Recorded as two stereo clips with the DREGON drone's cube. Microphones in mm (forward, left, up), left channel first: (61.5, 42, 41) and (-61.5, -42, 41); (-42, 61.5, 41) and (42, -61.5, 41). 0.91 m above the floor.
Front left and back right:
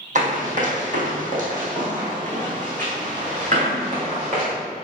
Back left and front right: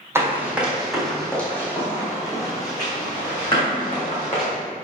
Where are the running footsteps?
125° right, 1.9 m; by 4.5 s 175° left, 3.5 m.